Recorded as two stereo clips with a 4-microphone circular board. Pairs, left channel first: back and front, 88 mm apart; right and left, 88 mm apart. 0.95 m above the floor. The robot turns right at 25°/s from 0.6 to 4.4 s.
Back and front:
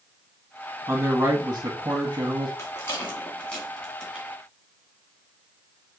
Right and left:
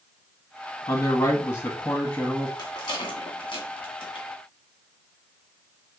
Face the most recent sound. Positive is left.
turn(degrees=-85)